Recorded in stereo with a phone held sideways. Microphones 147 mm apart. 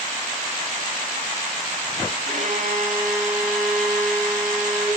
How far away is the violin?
About 10 m.